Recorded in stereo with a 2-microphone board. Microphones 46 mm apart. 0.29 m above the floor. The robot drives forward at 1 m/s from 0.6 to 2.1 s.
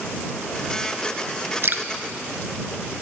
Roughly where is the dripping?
Right.